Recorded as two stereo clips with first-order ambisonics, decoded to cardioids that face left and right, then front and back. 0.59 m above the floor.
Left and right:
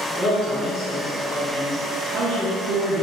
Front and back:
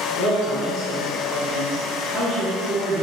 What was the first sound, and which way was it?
A man speaking, 25° left.